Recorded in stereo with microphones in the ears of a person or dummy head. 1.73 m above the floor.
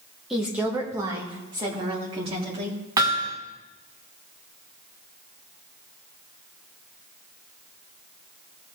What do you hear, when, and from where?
0.3 s a woman speaking: centre (ahead or behind), 1.4 m; by 2.8 s 30° right (ahead or behind), 4 m
3.0 s hammering: 20° right (ahead or behind), 1.5 m